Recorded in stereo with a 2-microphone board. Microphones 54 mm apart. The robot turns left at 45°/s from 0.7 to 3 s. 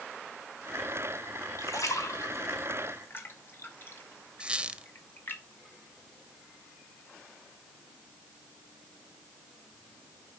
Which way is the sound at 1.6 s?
75° left (ahead or behind).